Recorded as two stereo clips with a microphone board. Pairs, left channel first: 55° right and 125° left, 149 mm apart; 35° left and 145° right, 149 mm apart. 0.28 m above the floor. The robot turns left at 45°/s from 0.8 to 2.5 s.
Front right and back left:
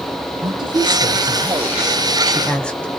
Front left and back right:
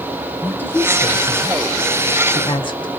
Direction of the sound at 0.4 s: 100° left.